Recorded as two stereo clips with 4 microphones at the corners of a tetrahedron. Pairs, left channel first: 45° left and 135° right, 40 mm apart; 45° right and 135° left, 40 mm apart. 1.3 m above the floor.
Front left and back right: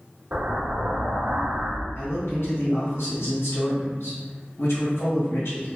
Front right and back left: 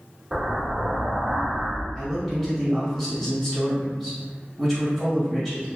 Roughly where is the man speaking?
Ahead left.